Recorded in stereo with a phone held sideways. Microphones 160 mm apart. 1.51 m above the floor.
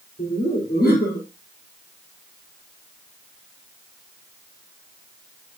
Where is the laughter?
80° left, 5 m.